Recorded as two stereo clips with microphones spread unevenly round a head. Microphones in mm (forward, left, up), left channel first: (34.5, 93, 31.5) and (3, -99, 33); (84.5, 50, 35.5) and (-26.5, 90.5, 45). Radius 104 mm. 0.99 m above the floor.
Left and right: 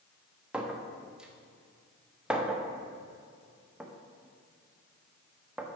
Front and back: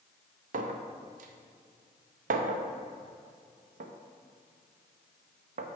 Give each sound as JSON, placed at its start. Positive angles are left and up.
{"t": 0.5, "sound": "a clink", "azimuth_deg": 175, "distance_m": 0.5}